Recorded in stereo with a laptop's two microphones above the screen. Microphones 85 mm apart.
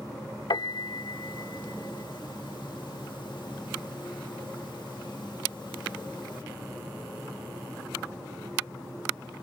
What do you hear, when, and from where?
0.5 s a piano: 65° left (ahead or behind)